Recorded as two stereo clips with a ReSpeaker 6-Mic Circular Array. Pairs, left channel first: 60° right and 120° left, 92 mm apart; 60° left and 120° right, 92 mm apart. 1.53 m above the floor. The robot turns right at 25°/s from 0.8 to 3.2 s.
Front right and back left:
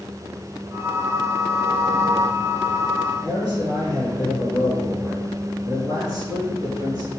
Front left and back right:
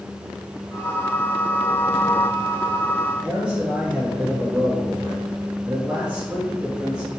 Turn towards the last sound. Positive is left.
turn(degrees=165)